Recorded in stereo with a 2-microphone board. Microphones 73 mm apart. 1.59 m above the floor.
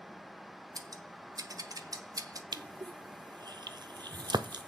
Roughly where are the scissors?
Right.